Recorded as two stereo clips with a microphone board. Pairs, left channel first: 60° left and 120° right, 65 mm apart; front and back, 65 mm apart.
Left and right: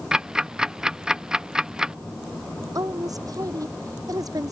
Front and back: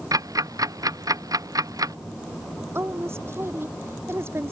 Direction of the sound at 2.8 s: 130° right.